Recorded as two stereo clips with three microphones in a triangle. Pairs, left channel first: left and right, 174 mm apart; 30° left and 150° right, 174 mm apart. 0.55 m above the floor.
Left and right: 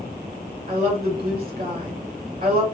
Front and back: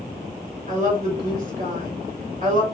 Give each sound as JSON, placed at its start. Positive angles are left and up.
{"t": 0.7, "sound": "a woman speaking", "azimuth_deg": -115, "distance_m": 2.5}